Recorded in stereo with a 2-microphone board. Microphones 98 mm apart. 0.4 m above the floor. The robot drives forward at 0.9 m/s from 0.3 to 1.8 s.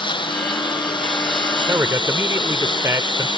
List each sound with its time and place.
0.0 s a lawn mower: 55° left (ahead or behind)
1.7 s a man speaking: 30° right (ahead or behind)